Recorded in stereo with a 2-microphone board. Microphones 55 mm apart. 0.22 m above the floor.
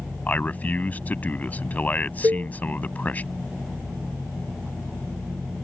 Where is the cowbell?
70° right (ahead or behind).